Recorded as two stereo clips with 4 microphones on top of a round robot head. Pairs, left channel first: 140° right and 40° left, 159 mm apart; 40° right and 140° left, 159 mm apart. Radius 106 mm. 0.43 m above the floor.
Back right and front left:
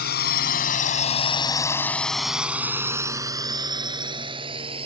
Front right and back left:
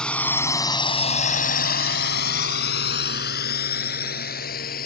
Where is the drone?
125° right; by 4.9 s 15° right.